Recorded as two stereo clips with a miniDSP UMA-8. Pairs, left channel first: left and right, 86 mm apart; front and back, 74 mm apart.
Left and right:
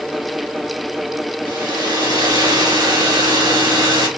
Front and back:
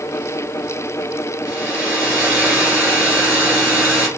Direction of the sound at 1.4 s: 110° right.